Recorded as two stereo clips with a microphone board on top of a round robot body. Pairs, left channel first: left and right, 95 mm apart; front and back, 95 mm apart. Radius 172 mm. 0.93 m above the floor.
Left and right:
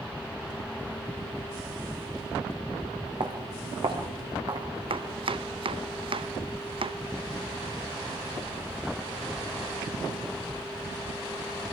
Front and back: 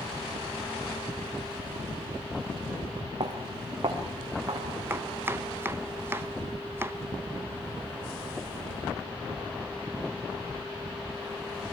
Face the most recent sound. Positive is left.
turn(degrees=-115)